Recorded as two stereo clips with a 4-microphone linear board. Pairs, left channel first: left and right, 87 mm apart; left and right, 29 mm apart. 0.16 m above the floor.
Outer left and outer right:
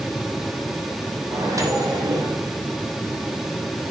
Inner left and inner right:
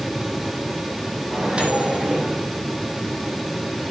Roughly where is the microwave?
Right.